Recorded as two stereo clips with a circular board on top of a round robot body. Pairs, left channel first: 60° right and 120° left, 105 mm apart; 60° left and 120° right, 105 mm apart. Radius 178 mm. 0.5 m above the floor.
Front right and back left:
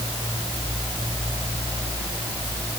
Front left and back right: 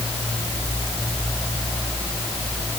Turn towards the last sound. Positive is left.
No sound to turn to.